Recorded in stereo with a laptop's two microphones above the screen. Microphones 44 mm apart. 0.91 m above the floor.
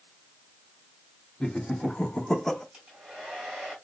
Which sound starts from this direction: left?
Laughter, at 1.4 s.